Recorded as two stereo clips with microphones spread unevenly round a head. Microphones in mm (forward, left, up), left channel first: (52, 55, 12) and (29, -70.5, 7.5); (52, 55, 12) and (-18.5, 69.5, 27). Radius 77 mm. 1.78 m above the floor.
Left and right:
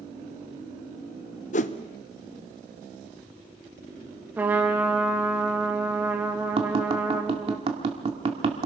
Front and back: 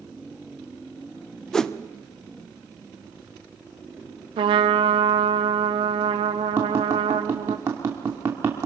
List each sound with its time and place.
1.5 s a whoosh: 75° left, 0.8 m
4.4 s a trumpet: straight behind, 1.3 m
6.6 s tapping: 145° right, 1.8 m